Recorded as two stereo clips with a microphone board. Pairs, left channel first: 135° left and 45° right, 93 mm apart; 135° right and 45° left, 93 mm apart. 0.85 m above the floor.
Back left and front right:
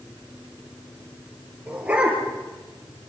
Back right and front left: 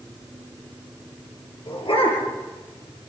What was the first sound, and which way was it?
A dog barking, 120° right.